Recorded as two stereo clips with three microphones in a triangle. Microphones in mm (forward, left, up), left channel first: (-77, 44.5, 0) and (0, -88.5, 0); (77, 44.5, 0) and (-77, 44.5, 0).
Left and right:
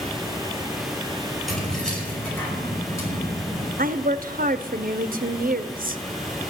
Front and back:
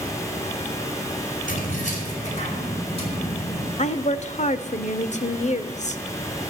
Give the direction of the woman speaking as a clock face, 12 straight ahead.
1 o'clock.